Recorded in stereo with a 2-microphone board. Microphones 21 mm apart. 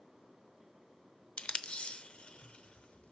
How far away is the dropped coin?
No dropped coin in this recording.